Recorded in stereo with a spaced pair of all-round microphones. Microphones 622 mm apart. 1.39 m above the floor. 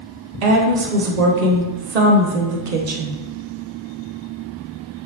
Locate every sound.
0.4 s a woman speaking: 80° right, 0.7 m